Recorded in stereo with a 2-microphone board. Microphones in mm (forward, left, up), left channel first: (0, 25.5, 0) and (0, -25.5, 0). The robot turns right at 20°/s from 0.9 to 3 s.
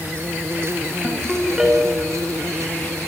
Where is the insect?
125° right, 0.8 m; by 3.1 s 80° right, 0.8 m.